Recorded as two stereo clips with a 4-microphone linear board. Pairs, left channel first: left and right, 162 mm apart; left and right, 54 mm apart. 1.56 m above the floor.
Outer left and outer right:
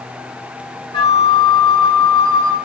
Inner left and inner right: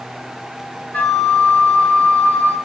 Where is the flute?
30° left (ahead or behind), 1.9 m.